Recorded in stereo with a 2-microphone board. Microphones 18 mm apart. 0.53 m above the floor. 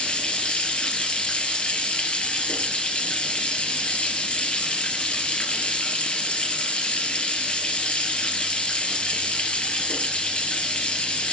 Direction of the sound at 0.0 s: 85° left.